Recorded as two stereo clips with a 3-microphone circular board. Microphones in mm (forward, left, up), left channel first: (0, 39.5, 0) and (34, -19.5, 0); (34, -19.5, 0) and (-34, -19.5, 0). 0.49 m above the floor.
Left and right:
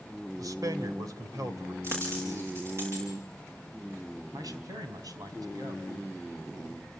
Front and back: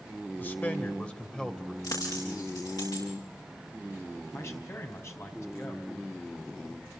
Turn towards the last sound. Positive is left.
turn(degrees=-45)